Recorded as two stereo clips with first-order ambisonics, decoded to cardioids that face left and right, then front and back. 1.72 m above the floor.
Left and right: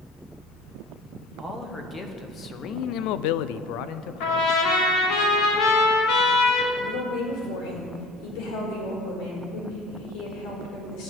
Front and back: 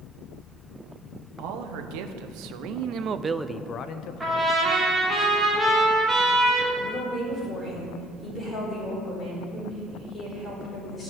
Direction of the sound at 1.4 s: 170° left.